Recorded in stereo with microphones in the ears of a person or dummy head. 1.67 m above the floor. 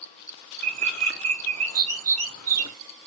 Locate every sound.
0.6 s a bird: 85° right, 1.1 m